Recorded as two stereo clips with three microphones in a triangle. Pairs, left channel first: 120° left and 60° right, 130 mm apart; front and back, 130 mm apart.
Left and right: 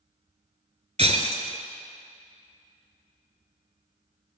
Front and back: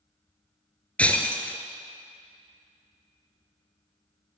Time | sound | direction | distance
1.0 | breaking glass | 75° right | 0.7 m